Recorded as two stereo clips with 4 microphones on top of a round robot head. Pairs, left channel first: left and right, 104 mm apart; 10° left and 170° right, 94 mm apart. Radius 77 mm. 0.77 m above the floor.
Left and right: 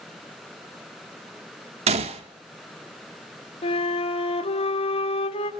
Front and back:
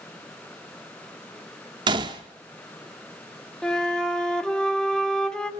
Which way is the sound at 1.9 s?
120° right.